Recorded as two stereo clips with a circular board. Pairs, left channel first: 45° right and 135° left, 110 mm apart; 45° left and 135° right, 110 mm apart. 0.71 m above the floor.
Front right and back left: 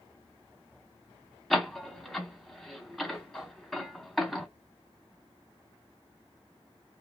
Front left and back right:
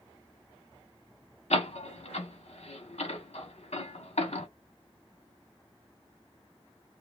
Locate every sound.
1.5 s a door slam: 45° left, 1.1 m